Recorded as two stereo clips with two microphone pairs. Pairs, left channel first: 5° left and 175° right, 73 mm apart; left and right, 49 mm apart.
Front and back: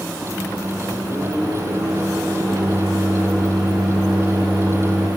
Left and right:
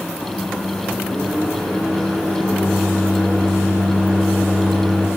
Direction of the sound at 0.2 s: Straight behind.